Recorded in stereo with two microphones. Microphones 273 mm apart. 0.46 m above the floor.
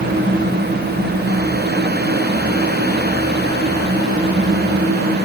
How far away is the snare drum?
I don't hear a snare drum.